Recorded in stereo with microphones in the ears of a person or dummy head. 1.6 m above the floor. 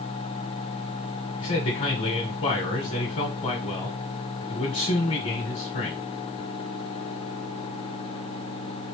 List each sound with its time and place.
1.4 s a man speaking: 35° left (ahead or behind), 1.1 m